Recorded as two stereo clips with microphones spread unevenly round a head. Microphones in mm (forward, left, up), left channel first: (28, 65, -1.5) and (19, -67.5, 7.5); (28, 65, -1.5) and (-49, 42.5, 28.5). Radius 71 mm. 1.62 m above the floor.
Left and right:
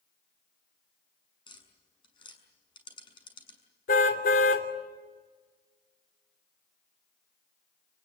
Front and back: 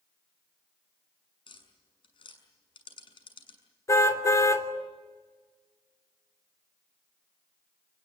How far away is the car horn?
About 3 m.